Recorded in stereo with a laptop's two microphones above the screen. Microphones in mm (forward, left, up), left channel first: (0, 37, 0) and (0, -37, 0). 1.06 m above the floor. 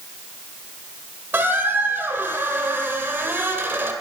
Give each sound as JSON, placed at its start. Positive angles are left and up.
{"t": 1.3, "sound": "a squeak", "side_deg": -30, "distance_m": 1.5}